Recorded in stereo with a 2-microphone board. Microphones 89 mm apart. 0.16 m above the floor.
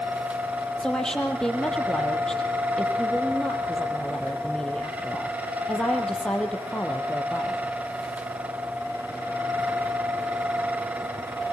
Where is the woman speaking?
5° left (ahead or behind), 4.5 m.